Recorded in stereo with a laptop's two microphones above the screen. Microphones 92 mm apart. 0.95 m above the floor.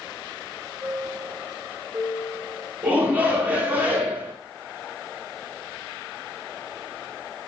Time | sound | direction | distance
0.8 | a chime | 15° right (ahead or behind) | 3 m
2.8 | a shout | 20° right (ahead or behind) | 2.5 m